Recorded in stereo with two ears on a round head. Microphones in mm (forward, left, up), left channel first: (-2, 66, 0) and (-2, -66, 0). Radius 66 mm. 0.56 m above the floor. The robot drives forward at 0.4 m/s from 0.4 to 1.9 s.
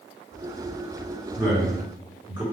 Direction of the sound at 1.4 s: 35° right (ahead or behind).